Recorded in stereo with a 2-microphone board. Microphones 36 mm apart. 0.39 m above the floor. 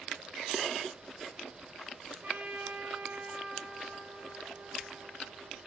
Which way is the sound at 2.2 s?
45° right (ahead or behind).